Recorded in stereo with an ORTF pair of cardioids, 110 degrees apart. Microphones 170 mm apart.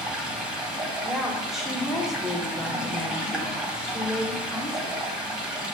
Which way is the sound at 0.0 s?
5° right.